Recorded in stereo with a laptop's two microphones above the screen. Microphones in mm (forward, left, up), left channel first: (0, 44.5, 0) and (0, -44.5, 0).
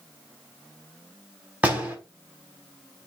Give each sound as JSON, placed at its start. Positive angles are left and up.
{"t": 1.6, "sound": "a door slam", "side_deg": -15, "distance_m": 4.5}